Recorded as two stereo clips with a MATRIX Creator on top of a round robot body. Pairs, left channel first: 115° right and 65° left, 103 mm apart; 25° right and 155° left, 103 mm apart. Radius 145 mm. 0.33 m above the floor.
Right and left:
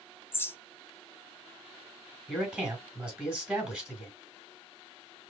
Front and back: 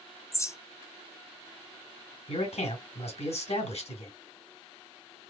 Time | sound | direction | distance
0.3 | a bird | 60° right | 0.9 m
2.3 | a man speaking | 15° right | 3 m